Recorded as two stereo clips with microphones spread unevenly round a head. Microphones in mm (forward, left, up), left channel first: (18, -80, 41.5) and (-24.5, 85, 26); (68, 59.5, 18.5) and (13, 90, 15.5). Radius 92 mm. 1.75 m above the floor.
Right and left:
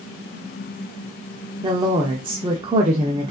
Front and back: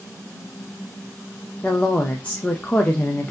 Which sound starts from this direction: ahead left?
A woman speaking, at 1.6 s.